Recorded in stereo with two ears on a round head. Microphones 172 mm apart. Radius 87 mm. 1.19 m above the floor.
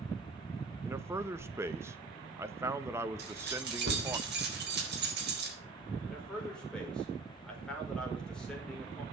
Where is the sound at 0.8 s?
15° right (ahead or behind), 1.0 m.